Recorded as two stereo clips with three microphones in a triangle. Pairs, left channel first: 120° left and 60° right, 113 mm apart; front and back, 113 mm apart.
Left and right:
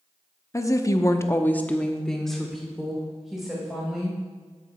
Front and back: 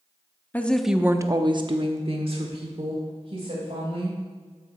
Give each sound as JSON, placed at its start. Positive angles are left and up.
{"t": 0.5, "sound": "a woman speaking", "azimuth_deg": 70, "distance_m": 0.8}